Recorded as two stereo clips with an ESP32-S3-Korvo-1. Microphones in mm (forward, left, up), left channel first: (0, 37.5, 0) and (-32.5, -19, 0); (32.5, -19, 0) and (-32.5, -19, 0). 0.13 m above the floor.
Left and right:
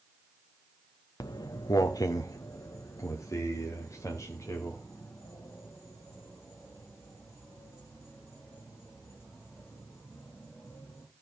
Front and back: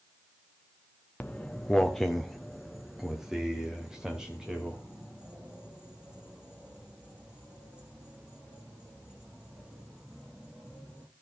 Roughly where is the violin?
No violin in this recording.